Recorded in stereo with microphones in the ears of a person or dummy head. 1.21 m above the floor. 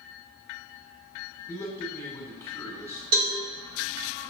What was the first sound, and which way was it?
A man speaking, 20° left (ahead or behind).